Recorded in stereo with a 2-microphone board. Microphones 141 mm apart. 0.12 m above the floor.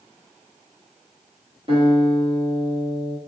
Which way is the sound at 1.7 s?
40° right (ahead or behind).